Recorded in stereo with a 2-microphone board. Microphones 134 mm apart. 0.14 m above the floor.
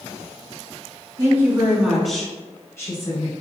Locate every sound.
1.2 s a woman speaking: 25° right (ahead or behind), 1.9 m; by 3.3 s 40° left (ahead or behind), 1.9 m